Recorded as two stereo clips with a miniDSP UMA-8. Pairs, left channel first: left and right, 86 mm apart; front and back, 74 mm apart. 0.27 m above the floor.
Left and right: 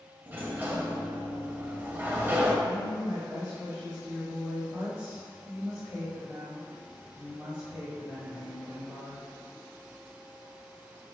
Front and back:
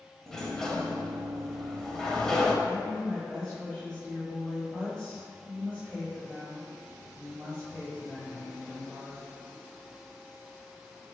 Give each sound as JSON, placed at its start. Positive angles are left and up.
{"t": 0.3, "sound": "a sliding door", "azimuth_deg": -75, "distance_m": 0.5}
{"t": 2.6, "sound": "a woman speaking", "azimuth_deg": -65, "distance_m": 1.2}